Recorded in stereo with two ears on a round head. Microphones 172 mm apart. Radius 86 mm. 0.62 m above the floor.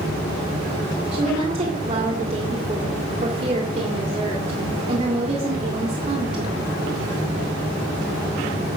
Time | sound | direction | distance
1.1 | a woman speaking | 35° right (ahead or behind) | 1.9 m